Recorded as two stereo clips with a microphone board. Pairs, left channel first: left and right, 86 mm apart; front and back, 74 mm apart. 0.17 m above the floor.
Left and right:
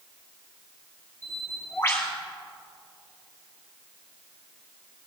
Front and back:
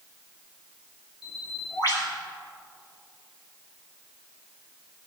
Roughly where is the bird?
Ahead left.